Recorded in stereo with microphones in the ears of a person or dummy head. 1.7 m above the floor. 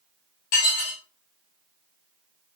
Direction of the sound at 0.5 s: 45° left (ahead or behind).